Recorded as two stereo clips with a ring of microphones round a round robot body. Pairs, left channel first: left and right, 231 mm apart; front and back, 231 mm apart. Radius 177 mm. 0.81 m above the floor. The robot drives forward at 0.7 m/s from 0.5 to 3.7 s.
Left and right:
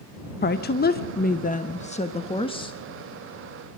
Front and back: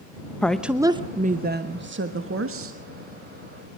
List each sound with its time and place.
0.4 s a woman speaking: 85° left, 0.9 m; by 2.8 s 160° left, 1.8 m